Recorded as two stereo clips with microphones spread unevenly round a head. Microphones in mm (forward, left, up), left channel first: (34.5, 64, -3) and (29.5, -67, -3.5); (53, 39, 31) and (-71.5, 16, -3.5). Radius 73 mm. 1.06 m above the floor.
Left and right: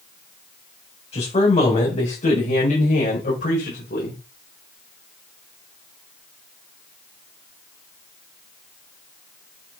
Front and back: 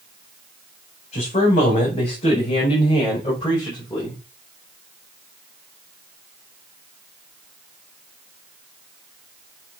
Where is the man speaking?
45° left, 6.5 m; by 4.2 s 70° left, 5.5 m.